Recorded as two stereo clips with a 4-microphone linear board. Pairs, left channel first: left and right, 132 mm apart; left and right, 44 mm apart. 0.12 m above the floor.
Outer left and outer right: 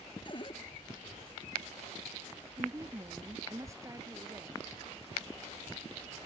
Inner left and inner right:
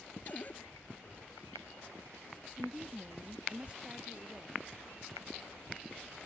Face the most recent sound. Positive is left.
turn(degrees=-25)  # may be behind; listen again after turning